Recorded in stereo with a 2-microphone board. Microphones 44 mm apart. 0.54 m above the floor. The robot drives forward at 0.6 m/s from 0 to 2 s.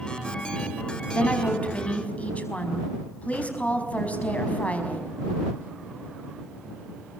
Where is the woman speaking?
35° left (ahead or behind), 4.5 m; by 5.0 s 30° left (ahead or behind), 5 m.